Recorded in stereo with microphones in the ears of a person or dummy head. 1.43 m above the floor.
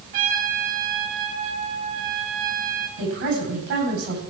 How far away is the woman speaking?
About 9 m.